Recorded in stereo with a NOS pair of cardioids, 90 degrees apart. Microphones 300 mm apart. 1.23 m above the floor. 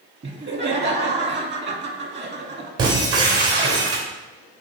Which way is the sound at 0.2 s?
35° right.